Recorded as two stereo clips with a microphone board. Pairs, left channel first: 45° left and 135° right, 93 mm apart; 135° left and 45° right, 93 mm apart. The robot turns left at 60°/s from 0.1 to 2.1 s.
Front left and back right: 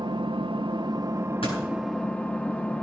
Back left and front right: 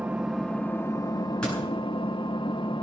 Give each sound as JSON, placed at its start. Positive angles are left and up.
{"t": 0.0, "sound": "an engine running", "azimuth_deg": -120, "distance_m": 0.9}
{"t": 1.4, "sound": "a door slam", "azimuth_deg": 55, "distance_m": 8.0}